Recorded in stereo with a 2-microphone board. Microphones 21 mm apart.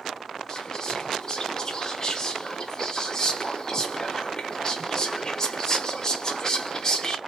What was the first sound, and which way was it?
Whispering, 25° left (ahead or behind).